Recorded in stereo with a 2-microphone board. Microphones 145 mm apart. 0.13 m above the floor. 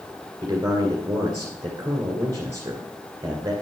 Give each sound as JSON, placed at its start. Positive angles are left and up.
{"t": 0.4, "sound": "a man speaking", "side_deg": -25, "distance_m": 2.0}